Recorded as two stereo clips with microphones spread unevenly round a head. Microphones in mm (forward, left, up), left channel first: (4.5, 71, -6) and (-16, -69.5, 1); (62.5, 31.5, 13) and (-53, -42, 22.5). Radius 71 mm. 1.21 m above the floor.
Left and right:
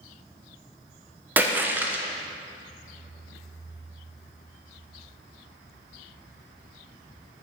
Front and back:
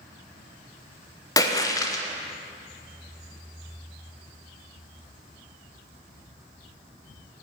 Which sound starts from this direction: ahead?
A splash, at 1.4 s.